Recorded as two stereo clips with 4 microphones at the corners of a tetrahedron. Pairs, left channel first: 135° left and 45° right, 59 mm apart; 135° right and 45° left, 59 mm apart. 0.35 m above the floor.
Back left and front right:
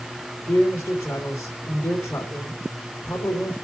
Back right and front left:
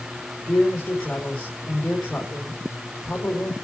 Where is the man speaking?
155° left, 4 m.